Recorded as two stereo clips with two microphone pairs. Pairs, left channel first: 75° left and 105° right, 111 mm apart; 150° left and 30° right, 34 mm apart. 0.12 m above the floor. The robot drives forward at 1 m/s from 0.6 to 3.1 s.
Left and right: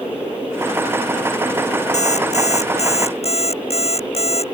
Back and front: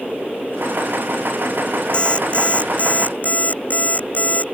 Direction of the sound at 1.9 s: 90° left.